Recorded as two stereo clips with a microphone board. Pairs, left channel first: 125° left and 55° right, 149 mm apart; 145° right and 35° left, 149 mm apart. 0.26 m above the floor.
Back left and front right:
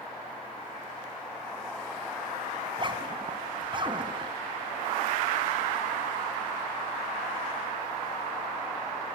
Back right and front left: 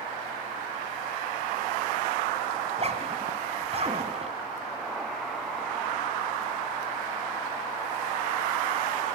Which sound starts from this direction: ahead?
A zipper, at 2.6 s.